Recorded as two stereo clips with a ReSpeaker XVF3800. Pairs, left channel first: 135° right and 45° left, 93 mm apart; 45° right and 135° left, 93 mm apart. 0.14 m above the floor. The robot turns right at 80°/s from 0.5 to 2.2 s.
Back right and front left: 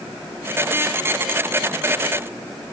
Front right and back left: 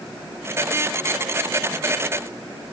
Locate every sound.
Only background noise.